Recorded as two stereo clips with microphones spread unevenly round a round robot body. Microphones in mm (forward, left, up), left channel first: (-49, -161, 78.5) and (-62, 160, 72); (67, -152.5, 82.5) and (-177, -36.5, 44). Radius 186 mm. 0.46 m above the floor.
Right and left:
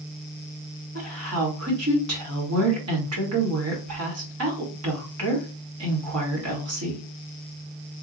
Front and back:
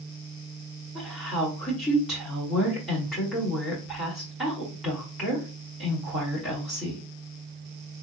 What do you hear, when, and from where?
0.9 s a woman speaking: 70° left, 1.8 m